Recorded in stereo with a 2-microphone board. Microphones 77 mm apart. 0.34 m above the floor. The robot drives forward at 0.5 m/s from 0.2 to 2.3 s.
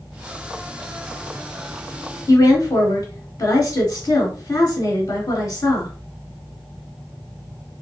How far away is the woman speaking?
About 1.4 m.